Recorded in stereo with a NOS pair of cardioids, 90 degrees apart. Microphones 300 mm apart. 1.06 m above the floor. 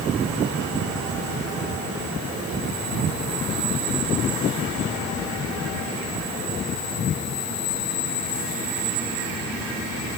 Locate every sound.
Only background noise.